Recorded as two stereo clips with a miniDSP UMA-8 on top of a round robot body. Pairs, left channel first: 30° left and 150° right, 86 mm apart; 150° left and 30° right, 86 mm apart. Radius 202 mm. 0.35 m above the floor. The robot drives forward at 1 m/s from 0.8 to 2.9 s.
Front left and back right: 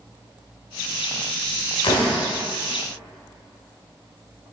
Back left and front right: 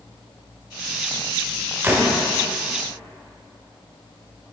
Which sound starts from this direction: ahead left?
A door slam, at 1.8 s.